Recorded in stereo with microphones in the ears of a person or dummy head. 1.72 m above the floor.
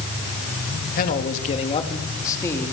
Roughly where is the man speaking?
Left.